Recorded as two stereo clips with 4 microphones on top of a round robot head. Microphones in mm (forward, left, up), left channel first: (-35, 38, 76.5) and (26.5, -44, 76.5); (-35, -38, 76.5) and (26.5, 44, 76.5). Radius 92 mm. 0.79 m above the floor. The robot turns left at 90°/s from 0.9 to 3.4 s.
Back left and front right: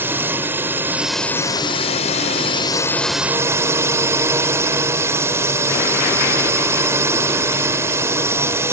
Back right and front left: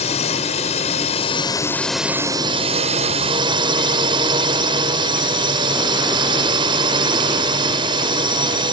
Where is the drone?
125° right; by 8.7 s 10° left.